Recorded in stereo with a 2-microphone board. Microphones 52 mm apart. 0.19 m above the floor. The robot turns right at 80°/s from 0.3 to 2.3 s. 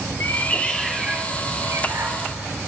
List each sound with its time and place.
0.2 s a cat meowing: 130° left, 0.5 m; by 2.3 s 70° right, 0.5 m